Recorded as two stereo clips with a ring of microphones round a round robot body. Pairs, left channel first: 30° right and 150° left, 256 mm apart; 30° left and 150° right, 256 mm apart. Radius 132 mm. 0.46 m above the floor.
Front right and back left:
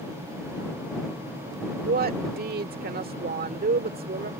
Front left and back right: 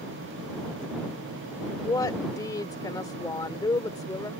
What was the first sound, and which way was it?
A woman speaking, 105° left.